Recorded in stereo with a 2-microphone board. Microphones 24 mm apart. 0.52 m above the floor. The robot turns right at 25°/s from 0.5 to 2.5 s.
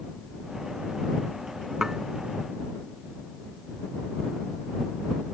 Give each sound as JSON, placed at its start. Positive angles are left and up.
{"t": 1.8, "sound": "dishes clattering", "side_deg": -20}